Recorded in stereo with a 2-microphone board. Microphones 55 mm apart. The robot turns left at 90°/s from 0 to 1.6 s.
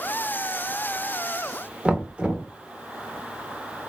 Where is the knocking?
20° right (ahead or behind), 0.5 m.